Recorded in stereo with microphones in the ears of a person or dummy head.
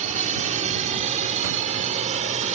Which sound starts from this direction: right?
A drone, at 0.0 s.